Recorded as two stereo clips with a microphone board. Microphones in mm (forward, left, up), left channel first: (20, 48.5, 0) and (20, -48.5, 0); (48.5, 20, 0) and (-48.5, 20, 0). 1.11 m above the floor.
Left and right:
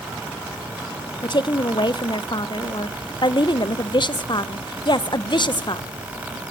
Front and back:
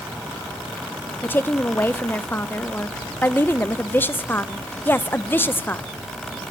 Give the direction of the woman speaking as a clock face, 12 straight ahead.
10 o'clock.